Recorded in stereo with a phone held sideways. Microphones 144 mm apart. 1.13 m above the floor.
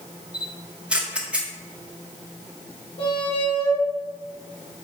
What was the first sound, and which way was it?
A camera shutter, 10° right (ahead or behind).